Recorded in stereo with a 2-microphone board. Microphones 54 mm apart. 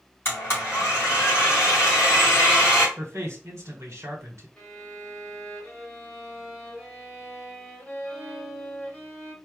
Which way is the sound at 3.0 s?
65° right (ahead or behind).